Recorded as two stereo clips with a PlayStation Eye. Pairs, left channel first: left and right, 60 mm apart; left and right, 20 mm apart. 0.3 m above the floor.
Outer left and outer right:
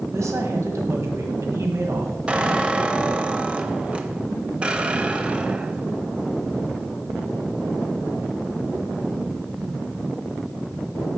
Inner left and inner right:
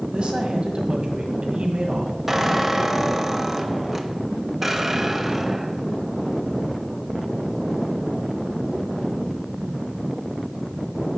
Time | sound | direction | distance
0.1 | a woman speaking | 55° right (ahead or behind) | 1.7 m
2.3 | a squeak | 20° right (ahead or behind) | 0.7 m